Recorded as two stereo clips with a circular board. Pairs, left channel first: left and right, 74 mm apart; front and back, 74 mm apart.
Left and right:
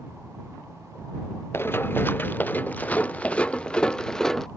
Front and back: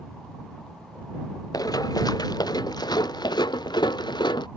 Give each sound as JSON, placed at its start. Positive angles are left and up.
{"t": 1.5, "sound": "running footsteps", "azimuth_deg": 30}